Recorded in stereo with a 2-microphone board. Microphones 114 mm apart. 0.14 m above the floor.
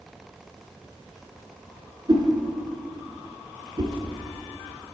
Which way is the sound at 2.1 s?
40° right (ahead or behind).